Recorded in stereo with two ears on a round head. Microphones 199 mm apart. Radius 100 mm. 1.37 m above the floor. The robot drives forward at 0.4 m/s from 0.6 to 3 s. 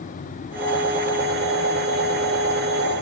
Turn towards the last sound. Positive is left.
No sound to turn to.